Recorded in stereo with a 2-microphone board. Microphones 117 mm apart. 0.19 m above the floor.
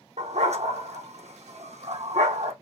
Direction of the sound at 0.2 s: 75° right (ahead or behind).